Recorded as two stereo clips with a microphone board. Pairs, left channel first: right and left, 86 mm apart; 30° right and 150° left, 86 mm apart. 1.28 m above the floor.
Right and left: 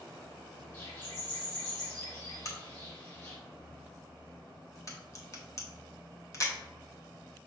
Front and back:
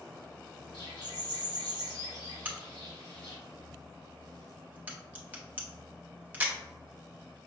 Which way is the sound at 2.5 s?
140° right.